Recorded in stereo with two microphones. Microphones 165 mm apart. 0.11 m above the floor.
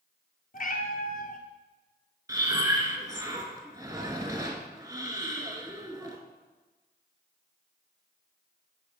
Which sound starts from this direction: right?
Breathing, at 2.3 s.